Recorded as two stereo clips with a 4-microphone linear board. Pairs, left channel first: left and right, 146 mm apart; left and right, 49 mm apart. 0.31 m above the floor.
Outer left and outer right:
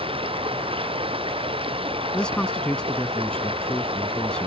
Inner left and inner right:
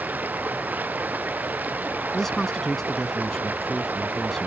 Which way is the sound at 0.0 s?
40° right (ahead or behind).